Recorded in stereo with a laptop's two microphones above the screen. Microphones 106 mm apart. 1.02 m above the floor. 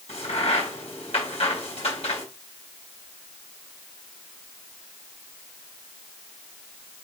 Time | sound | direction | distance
0.1 | a crack | 85° left | 4.5 m